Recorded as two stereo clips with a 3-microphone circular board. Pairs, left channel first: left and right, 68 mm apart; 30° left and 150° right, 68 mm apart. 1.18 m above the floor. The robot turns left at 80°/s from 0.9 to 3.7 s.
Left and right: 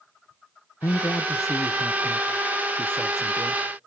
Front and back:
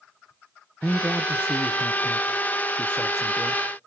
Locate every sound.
0.8 s a man speaking: 120° left, 0.7 m; by 3.6 s 100° right, 0.7 m